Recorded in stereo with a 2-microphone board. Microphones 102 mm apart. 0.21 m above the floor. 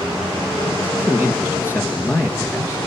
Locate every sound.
0.8 s a man speaking: 25° left (ahead or behind), 3 m